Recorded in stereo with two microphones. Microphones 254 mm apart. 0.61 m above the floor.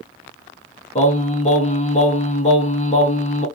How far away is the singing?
About 0.8 m.